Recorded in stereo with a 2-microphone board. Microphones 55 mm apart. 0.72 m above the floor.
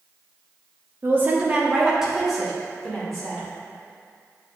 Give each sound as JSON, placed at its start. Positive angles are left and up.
{"t": 1.0, "sound": "a woman speaking", "side_deg": -40, "distance_m": 1.1}